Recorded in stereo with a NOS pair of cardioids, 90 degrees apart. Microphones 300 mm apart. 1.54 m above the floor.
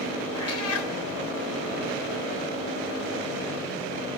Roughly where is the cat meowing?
Ahead left.